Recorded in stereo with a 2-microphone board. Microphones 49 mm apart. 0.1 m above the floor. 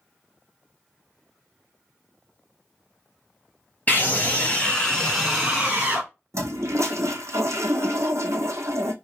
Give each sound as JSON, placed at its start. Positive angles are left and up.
{"t": 3.9, "sound": "a scream", "side_deg": 35, "distance_m": 2.0}
{"t": 6.3, "sound": "a toilet flushing", "side_deg": -75, "distance_m": 0.8}